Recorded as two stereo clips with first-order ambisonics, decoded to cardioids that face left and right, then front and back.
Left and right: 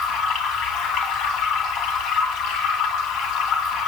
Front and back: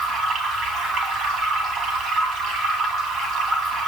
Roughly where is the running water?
Behind left.